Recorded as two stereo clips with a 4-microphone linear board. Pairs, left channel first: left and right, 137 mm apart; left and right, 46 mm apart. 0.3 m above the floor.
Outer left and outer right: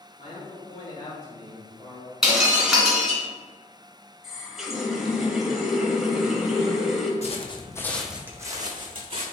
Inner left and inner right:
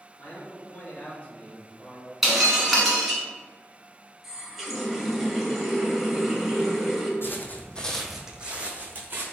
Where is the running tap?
5° right (ahead or behind), 0.7 m.